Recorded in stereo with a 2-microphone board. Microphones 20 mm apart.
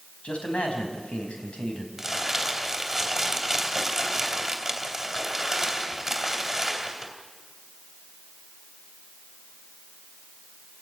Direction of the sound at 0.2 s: 80° left.